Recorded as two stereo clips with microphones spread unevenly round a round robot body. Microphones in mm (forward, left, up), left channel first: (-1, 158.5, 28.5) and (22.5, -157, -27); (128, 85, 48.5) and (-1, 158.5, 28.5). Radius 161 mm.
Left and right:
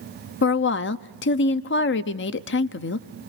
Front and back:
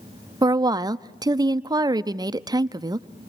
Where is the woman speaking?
135° left, 0.5 m.